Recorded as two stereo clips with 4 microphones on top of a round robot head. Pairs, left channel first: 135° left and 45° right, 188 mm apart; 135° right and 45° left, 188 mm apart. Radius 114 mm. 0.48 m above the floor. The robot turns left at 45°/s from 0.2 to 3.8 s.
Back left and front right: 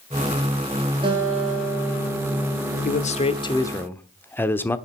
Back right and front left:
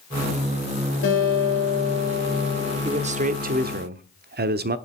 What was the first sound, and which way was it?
A guitar, 110° right.